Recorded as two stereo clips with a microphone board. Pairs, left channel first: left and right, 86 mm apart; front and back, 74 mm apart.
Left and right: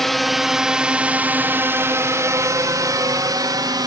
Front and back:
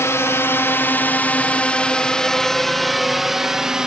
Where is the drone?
5° left; by 3.9 s 100° right.